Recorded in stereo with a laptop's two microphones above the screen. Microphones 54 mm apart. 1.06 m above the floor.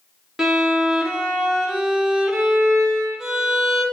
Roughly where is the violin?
Centre.